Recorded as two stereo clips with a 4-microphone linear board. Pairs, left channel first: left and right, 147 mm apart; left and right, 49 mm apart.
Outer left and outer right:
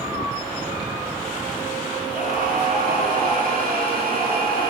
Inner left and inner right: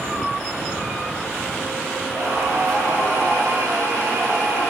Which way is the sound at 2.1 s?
70° right (ahead or behind).